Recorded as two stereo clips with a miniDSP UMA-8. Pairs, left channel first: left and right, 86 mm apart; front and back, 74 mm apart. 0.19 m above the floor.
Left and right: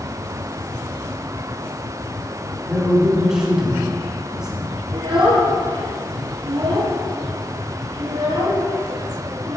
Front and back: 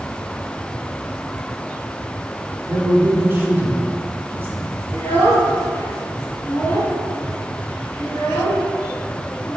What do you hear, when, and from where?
2.7 s a man speaking: 165° right, 1.7 m
4.9 s a child speaking: 65° right, 2.5 m